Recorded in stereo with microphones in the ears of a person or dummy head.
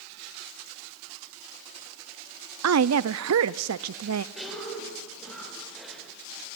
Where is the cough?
5° left (ahead or behind), 7.5 m.